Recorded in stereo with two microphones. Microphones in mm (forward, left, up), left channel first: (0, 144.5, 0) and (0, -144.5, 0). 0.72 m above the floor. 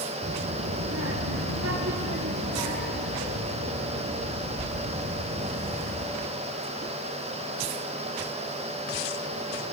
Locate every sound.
0.2 s a child speaking: 40° right (ahead or behind), 1.6 m; by 6.1 s 45° right (ahead or behind), 3 m